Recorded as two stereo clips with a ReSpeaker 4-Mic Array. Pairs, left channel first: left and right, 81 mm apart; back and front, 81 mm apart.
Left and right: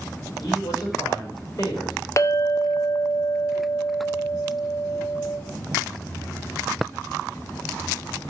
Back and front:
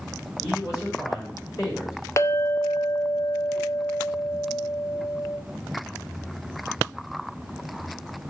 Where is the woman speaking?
135° left, 5 m.